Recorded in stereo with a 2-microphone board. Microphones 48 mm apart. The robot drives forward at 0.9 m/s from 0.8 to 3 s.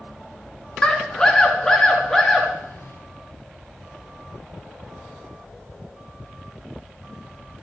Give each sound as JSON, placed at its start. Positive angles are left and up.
{"t": 0.8, "sound": "a scream", "side_deg": 20, "distance_m": 1.7}